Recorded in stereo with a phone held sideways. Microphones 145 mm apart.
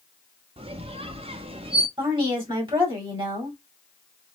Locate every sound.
0.6 s a squeak: 40° right (ahead or behind), 0.7 m
2.0 s a woman speaking: 35° right (ahead or behind), 2.5 m